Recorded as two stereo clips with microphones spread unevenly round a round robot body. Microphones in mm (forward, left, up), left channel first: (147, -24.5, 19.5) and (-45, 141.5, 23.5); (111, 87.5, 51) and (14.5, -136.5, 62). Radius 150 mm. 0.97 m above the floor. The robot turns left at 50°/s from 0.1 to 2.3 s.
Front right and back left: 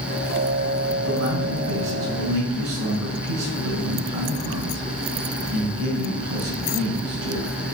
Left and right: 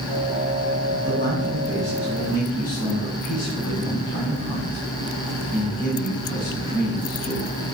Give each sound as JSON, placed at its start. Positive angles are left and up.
{"t": 0.9, "sound": "a man speaking", "azimuth_deg": -160, "distance_m": 4.5}